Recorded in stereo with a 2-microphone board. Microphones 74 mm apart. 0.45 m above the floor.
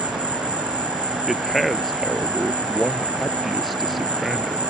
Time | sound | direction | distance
0.0 | an insect | 80° right | ?
1.3 | a man speaking | centre (ahead or behind) | ?